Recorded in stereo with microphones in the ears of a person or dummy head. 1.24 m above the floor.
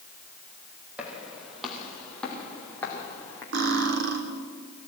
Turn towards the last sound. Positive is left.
turn(degrees=-60)  # may be behind; listen again after turning